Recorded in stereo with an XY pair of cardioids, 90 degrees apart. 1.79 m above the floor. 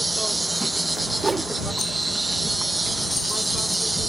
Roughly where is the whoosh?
Ahead right.